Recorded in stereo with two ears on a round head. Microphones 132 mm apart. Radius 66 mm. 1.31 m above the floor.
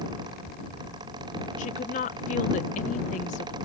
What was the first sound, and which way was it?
A woman speaking, 55° left (ahead or behind).